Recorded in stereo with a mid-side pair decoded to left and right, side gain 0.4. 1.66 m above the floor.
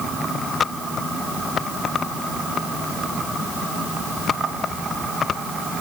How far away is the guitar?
I don't hear a guitar.